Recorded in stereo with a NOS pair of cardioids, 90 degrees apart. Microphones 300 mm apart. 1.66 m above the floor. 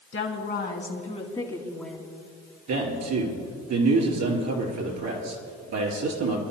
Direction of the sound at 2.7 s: 60° right.